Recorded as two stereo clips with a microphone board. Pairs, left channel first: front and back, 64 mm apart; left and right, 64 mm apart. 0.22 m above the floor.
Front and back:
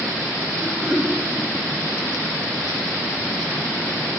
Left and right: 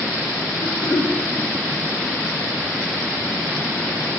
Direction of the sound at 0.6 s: 100° left.